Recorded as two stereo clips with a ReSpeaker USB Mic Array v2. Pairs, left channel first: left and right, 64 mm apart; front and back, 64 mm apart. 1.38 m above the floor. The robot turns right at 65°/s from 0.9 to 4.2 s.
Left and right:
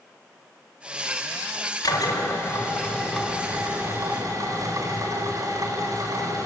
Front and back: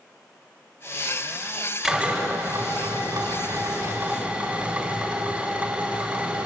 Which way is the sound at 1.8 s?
95° left.